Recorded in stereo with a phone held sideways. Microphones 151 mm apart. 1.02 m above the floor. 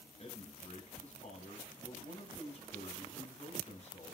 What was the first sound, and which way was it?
A man speaking, 45° left (ahead or behind).